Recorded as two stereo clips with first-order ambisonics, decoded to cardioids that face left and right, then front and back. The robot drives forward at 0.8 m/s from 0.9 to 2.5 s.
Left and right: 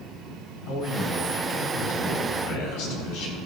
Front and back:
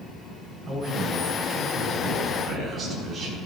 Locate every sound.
0.7 s a man speaking: 90° left, 4.5 m; by 3.4 s 105° left, 4.5 m